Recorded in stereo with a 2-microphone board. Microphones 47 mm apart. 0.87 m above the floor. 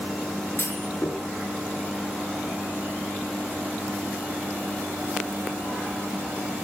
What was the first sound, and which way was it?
A clunk, 45° left (ahead or behind).